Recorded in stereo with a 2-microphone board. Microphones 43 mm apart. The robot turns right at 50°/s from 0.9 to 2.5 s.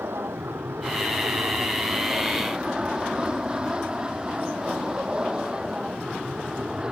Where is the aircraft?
100° right; by 6.9 s 20° right.